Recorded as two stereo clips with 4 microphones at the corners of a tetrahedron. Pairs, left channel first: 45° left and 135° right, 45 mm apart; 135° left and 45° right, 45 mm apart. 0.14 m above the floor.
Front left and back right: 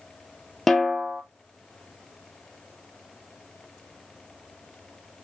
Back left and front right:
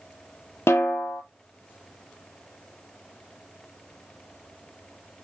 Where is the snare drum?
130° left, 0.6 m.